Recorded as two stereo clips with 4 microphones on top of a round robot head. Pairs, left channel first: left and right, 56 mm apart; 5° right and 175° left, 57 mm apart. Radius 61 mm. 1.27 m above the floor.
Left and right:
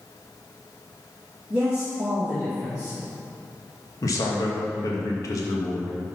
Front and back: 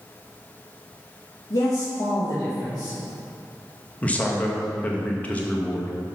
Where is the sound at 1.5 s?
15° right, 2 m.